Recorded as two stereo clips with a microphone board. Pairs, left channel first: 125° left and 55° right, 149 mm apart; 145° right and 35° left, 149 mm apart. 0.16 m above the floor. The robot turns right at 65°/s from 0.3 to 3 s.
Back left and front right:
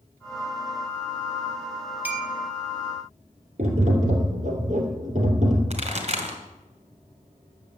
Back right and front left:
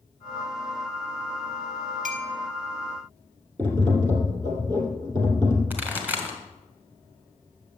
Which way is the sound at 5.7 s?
40° right.